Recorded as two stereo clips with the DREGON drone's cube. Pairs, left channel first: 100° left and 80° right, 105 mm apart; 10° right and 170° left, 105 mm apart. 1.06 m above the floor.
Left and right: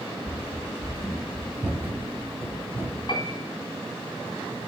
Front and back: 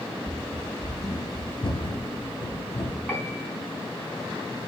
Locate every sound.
0.2 s running footsteps: 70° left, 1.0 m; by 3.0 s 20° right, 2.5 m
3.1 s a piano: 55° left, 2.5 m